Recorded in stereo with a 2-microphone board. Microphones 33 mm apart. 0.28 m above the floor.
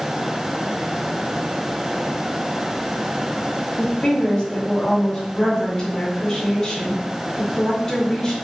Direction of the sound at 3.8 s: 30° left (ahead or behind).